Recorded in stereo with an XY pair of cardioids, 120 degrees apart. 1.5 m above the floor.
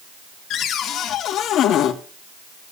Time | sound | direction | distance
0.5 | a cupboard door | 65° left | 2.5 m